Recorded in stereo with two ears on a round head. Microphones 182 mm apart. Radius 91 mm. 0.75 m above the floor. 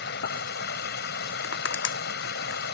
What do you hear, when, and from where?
0.0 s running water: 60° left (ahead or behind)
1.4 s crushing: 70° left (ahead or behind)